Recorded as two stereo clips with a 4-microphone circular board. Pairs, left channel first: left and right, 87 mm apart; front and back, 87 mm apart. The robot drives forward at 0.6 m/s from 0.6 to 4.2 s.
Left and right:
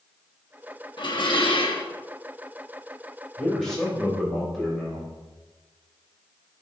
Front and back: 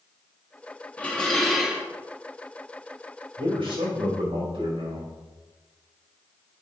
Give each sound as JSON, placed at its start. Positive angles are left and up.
{"t": 1.0, "sound": "dishes clattering", "azimuth_deg": 70, "distance_m": 1.2}
{"t": 3.4, "sound": "a man speaking", "azimuth_deg": 180, "distance_m": 4.0}